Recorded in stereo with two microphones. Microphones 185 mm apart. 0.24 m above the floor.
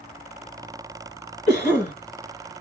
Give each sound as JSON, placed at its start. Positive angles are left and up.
{"t": 1.5, "sound": "a cough", "side_deg": 35, "distance_m": 1.5}